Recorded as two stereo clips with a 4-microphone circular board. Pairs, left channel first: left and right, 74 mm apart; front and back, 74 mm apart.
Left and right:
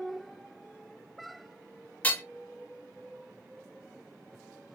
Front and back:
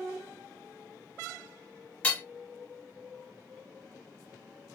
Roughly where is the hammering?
Ahead left.